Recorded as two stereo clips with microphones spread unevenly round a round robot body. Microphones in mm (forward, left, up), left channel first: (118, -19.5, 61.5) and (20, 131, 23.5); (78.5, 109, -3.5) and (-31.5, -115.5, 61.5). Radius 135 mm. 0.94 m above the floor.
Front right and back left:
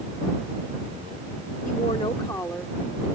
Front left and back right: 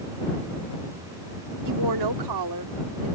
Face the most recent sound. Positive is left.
turn(degrees=-150)